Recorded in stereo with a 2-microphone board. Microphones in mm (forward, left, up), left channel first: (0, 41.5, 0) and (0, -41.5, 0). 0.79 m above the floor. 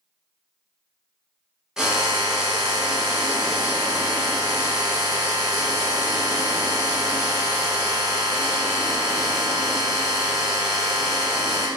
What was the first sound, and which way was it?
A drill, 10° right (ahead or behind).